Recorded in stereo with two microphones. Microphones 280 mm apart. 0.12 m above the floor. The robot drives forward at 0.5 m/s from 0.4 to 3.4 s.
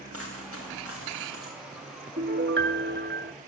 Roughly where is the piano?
Right.